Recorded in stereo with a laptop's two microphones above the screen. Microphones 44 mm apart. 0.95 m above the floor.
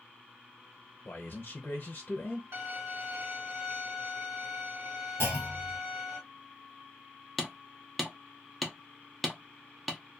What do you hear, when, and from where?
1.1 s a man speaking: 45° left (ahead or behind), 0.6 m
2.5 s a violin: 60° right (ahead or behind), 1.4 m
5.2 s a clunk: 70° right (ahead or behind), 1.4 m
7.4 s hammering: centre (ahead or behind), 0.5 m